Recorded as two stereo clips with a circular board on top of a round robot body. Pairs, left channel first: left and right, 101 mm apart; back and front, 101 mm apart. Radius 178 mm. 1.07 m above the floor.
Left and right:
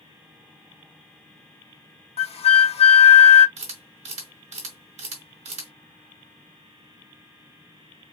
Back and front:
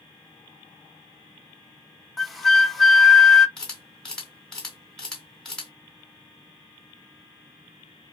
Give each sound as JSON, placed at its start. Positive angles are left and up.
{"t": 2.2, "sound": "a flute", "azimuth_deg": 90, "distance_m": 0.9}
{"t": 3.6, "sound": "a camera shutter", "azimuth_deg": -95, "distance_m": 2.0}